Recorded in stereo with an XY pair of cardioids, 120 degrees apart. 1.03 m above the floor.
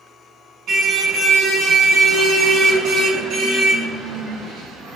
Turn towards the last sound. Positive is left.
turn(degrees=-75)